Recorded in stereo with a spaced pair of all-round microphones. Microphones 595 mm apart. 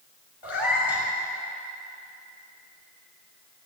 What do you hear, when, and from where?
0.4 s a cat meowing: 45° left (ahead or behind), 3.5 m